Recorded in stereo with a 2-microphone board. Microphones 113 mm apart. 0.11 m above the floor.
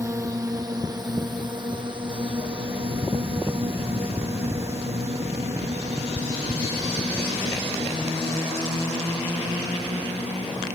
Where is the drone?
30° right (ahead or behind); by 10.8 s 80° right.